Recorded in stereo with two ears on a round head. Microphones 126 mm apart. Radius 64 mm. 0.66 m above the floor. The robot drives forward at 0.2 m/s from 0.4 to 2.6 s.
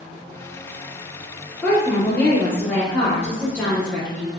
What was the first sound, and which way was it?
A woman speaking, 15° left (ahead or behind).